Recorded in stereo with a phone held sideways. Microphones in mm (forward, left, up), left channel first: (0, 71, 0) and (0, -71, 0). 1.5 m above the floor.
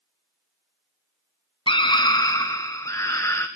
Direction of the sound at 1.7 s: 35° left (ahead or behind).